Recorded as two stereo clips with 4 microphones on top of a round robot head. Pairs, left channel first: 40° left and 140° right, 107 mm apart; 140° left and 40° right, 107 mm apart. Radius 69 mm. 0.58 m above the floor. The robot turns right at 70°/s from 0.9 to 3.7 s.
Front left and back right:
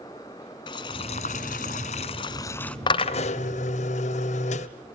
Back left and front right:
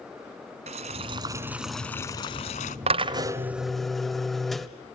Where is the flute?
I don't hear a flute.